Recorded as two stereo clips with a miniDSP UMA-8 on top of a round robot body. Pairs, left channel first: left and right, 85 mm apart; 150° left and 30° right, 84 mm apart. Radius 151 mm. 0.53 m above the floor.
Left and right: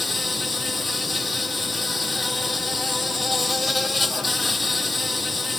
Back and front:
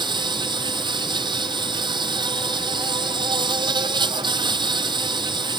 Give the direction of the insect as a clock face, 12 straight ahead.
12 o'clock.